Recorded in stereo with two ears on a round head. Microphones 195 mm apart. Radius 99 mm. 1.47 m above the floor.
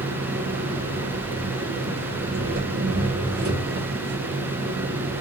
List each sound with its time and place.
0.0 s an engine running: 50° right (ahead or behind), 2 m